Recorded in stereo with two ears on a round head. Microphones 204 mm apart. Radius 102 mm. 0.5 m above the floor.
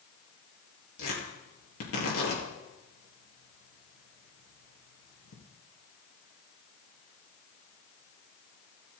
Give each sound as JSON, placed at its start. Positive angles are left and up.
{"t": 1.0, "sound": "tearing paper", "side_deg": 65, "distance_m": 5.0}